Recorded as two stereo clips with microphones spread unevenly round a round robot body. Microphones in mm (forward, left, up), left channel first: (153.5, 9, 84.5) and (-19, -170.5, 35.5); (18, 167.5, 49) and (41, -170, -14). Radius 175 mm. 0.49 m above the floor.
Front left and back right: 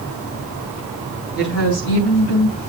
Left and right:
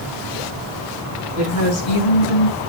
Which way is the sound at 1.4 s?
75° left.